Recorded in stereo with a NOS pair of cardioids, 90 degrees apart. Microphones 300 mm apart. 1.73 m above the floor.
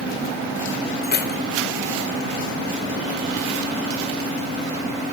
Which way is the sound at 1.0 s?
35° left.